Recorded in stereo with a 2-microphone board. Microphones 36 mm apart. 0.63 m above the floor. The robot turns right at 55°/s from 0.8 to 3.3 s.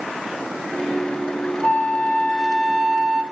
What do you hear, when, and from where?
1.6 s a flute: 110° left, 0.7 m; by 3.2 s 165° right, 0.7 m